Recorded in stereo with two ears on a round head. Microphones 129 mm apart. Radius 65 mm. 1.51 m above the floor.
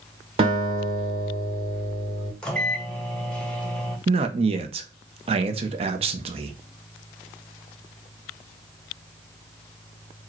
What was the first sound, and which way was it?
A guitar, 40° right (ahead or behind).